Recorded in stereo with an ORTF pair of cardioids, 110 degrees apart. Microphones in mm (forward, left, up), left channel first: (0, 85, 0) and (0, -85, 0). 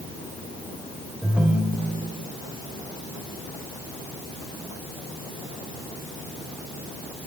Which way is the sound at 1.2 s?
5° right.